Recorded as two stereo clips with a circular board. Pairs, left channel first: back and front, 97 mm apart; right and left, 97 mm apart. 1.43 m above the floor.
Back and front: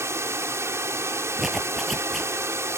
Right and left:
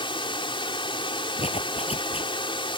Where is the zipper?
90° right.